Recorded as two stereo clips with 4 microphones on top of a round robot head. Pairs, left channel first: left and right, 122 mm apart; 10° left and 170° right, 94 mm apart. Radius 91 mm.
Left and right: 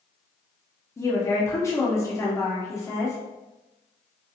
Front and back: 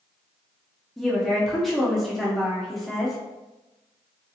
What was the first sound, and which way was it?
A woman speaking, 95° left.